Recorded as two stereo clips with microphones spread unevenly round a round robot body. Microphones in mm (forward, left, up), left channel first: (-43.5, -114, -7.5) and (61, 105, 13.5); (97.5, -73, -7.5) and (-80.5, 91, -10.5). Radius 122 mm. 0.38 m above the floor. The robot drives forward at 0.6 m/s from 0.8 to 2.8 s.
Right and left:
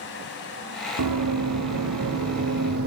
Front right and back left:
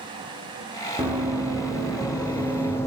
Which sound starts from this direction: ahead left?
Running footsteps, at 1.0 s.